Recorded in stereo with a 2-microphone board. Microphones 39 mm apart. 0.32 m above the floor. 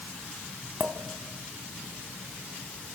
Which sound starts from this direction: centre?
A clink, at 0.8 s.